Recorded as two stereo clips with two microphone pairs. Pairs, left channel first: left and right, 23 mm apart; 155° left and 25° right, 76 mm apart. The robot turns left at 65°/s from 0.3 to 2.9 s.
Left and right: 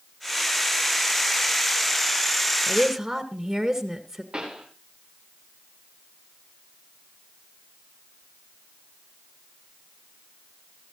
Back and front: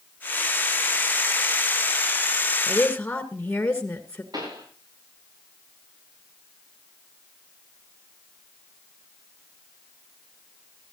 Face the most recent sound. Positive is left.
turn(degrees=-50)